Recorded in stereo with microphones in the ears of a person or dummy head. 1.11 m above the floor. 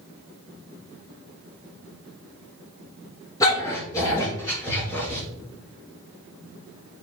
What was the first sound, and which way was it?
A dog barking, 25° left (ahead or behind).